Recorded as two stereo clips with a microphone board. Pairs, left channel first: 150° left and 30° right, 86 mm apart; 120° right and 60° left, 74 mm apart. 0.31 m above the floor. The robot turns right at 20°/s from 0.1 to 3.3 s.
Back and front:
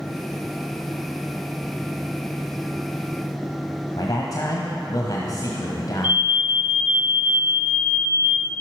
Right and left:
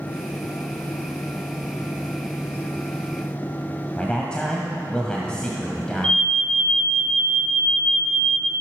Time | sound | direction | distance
4.0 | a man speaking | 165° left | 1.7 m
6.0 | an alarm | 70° right | 2.5 m